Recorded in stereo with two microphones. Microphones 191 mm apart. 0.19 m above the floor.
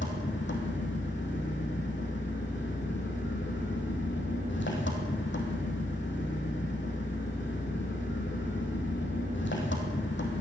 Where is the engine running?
80° left, 3 m.